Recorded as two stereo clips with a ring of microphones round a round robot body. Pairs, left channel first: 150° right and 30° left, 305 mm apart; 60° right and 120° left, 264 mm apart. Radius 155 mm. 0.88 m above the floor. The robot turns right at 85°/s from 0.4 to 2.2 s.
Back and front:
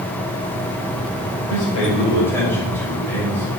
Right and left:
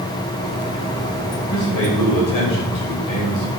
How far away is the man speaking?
About 3 m.